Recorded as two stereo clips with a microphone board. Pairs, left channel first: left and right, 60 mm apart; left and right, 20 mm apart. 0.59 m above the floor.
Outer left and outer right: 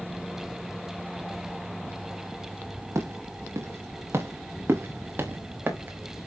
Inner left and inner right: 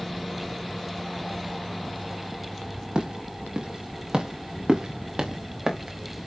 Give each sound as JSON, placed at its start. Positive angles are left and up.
{"t": 3.0, "sound": "footsteps", "side_deg": -55, "distance_m": 4.5}